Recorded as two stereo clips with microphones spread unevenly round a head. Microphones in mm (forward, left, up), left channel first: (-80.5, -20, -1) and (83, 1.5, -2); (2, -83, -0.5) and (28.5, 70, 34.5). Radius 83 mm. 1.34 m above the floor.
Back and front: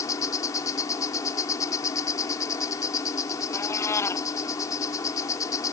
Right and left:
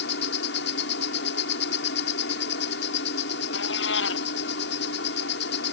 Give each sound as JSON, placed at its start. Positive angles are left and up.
{"t": 0.0, "sound": "an insect", "azimuth_deg": -100}
{"t": 3.5, "sound": "a cat meowing", "azimuth_deg": -100}